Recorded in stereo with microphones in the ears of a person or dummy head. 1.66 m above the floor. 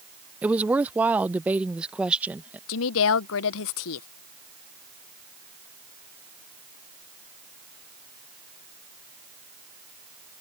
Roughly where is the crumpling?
I don't hear crumpling.